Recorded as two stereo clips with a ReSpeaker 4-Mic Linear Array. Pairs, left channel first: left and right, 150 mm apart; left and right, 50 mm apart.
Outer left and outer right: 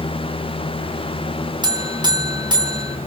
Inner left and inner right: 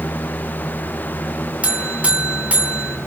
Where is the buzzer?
30° right (ahead or behind), 2 m.